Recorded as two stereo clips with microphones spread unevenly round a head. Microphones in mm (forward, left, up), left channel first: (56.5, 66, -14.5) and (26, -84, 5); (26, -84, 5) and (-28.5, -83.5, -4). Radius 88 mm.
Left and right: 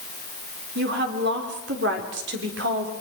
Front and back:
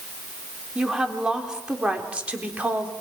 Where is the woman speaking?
100° right, 4 m; by 2.9 s 120° right, 4 m.